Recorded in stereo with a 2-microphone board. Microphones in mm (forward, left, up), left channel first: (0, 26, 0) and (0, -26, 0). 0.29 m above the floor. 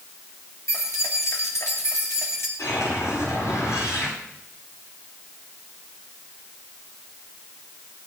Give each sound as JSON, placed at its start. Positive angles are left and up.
{"t": 0.7, "sound": "keys jangling", "side_deg": 75, "distance_m": 4.5}
{"t": 2.6, "sound": "a whoosh", "side_deg": 75, "distance_m": 10.0}